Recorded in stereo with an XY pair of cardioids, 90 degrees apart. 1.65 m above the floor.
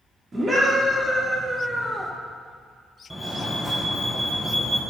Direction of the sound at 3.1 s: 5° right.